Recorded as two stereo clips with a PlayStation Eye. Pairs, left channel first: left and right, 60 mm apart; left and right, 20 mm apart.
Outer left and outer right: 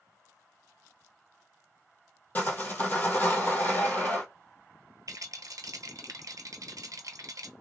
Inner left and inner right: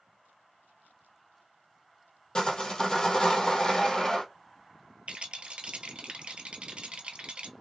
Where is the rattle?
70° right (ahead or behind), 0.7 m.